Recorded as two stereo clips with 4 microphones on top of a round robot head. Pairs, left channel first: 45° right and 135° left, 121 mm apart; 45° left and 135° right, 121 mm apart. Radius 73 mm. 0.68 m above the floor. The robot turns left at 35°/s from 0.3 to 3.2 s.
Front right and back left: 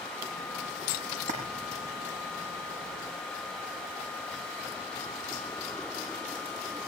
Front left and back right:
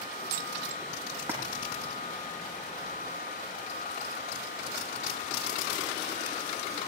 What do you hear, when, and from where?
1.2 s a splash: 160° left, 8.5 m; by 1.4 s 150° left, 8.5 m